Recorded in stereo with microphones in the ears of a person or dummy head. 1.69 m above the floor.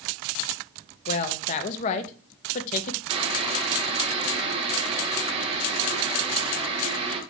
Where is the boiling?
30° right (ahead or behind), 0.9 m.